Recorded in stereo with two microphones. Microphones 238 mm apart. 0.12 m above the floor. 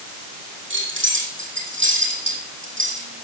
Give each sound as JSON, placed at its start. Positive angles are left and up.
{"t": 0.7, "sound": "keys jangling", "side_deg": -60, "distance_m": 3.5}